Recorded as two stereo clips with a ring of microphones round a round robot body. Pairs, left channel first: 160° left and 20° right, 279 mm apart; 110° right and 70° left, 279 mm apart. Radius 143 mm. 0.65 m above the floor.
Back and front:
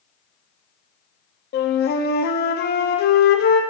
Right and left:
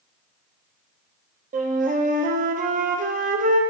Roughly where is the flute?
Behind left.